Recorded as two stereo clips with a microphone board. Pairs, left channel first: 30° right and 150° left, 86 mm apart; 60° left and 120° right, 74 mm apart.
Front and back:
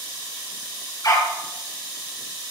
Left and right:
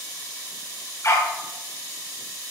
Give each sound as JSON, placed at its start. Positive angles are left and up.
{"t": 1.0, "sound": "a dog barking", "azimuth_deg": 10, "distance_m": 2.0}